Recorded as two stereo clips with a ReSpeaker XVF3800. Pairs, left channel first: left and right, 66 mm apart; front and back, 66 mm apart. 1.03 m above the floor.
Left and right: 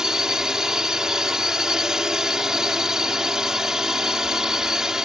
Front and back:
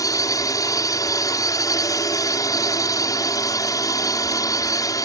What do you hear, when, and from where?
0.0 s a drone: 10° right